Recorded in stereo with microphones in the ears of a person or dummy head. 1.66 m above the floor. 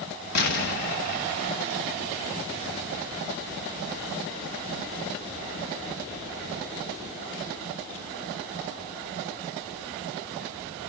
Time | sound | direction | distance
0.3 | an explosion | 50° left (ahead or behind) | 1.1 m